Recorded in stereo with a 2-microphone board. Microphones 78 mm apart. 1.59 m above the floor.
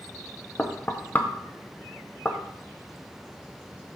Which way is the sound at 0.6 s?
20° left (ahead or behind).